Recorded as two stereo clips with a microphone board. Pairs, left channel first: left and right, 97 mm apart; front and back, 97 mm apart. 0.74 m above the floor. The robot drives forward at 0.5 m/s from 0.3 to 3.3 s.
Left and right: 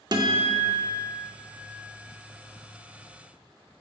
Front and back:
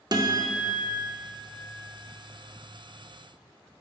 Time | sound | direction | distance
0.1 | a guitar | 135° right | 0.7 m